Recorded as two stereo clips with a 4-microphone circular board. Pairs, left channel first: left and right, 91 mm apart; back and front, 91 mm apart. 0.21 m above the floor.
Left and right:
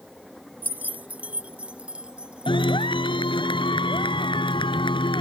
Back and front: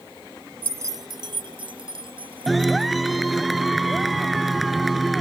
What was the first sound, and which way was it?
Keys jangling, 45° right.